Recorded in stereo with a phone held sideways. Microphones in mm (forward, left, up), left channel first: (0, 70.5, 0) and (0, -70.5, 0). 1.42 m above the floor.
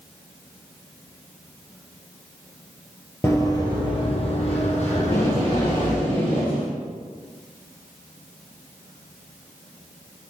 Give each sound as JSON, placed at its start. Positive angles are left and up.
{"t": 3.2, "sound": "running footsteps", "side_deg": 20, "distance_m": 2.0}
{"t": 5.0, "sound": "tape being pulled", "side_deg": 40, "distance_m": 5.5}